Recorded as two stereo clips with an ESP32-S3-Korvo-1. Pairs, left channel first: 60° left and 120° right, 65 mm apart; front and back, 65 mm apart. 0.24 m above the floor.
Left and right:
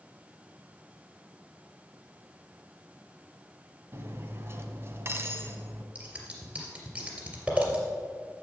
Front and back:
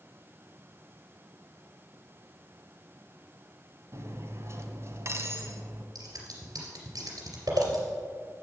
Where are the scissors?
165° left, 3 m.